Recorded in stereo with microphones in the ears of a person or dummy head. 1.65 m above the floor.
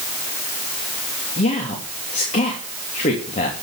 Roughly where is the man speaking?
Left.